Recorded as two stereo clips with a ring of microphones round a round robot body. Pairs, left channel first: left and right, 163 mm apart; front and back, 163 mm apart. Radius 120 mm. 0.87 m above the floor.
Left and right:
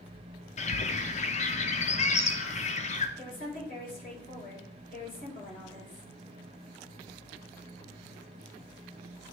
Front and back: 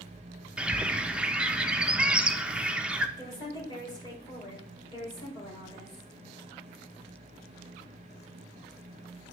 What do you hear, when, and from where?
0.6 s a bird: 100° left, 0.6 m
3.2 s a woman speaking: 60° left, 3 m